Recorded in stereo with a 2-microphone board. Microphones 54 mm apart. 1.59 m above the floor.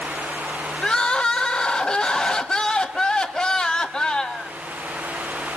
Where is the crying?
15° left (ahead or behind), 1.3 m.